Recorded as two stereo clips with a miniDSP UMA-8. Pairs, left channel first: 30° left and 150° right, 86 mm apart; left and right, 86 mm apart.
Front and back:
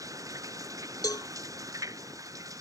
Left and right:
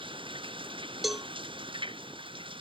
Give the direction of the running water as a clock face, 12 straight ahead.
3 o'clock.